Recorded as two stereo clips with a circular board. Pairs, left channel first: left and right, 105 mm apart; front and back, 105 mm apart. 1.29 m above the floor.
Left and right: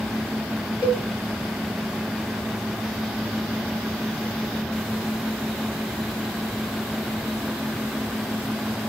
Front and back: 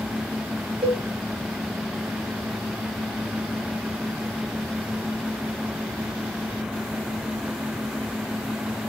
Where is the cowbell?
145° left, 1.2 m.